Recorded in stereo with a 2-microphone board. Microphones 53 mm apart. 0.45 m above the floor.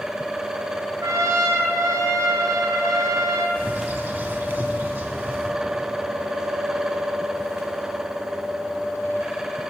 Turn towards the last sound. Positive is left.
turn(degrees=-40)  # may be behind; listen again after turning